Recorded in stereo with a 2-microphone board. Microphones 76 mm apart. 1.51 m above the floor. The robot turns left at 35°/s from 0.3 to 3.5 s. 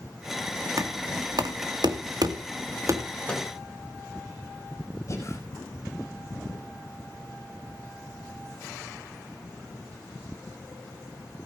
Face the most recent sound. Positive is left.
turn(degrees=40)  # may be behind; listen again after turning